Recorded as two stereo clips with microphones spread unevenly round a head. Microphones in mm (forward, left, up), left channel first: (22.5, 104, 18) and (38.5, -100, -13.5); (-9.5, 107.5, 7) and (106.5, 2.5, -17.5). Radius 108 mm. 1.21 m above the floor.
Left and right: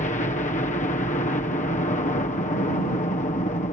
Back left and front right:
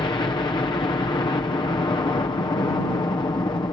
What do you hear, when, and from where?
0.0 s a helicopter: 100° left